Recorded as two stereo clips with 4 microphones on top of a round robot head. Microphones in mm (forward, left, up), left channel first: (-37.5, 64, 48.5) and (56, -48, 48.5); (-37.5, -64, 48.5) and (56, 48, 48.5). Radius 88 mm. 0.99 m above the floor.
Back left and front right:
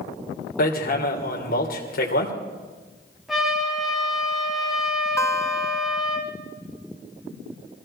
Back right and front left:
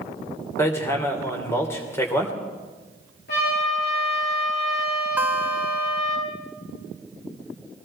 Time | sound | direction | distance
0.6 | hammering | 155° left | 3 m
3.3 | a trumpet | 140° right | 9.5 m
5.2 | a guitar | 100° left | 0.8 m